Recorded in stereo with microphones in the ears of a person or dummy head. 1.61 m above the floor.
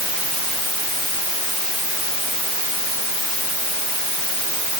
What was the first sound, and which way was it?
Only background noise.